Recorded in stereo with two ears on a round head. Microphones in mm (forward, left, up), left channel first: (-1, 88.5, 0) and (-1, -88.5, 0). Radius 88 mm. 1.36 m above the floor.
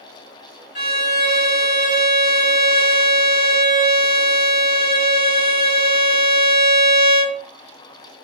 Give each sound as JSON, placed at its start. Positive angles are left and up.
{"t": 0.8, "sound": "a violin", "side_deg": 45, "distance_m": 1.9}